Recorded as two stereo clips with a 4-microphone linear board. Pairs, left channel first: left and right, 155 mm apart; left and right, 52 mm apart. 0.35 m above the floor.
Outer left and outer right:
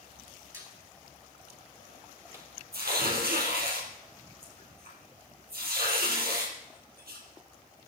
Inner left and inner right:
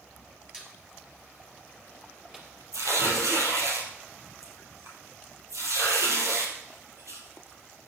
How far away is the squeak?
About 3 m.